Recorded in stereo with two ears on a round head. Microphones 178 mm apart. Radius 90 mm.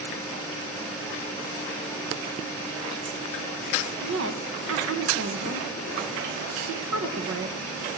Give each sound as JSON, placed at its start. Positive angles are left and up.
{"t": 4.0, "sound": "a woman speaking", "side_deg": -70, "distance_m": 1.3}